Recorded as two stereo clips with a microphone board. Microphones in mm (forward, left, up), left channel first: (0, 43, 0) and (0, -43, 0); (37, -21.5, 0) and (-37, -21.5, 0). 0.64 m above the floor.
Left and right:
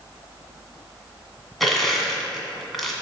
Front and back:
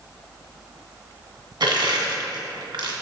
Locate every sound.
1.6 s crushing: straight behind, 1.8 m